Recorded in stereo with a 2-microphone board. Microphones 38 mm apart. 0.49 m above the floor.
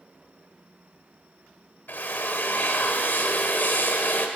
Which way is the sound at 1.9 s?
55° left (ahead or behind).